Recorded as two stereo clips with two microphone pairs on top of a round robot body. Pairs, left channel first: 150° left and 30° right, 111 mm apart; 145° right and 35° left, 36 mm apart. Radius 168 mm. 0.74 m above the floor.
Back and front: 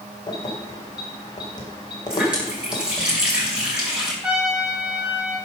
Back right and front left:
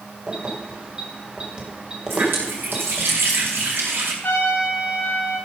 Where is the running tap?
50° left, 5 m.